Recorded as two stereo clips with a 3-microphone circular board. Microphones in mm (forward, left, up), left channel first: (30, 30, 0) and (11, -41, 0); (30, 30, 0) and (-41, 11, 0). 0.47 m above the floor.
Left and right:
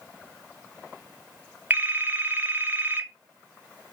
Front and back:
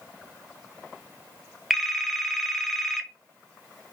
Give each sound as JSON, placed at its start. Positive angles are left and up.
{"t": 1.7, "sound": "a phone ringing", "azimuth_deg": -70, "distance_m": 0.5}